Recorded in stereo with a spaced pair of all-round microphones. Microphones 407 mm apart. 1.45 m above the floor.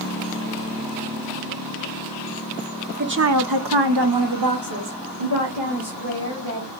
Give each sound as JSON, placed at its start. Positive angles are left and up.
{"t": 3.0, "sound": "a woman speaking", "side_deg": -25, "distance_m": 0.8}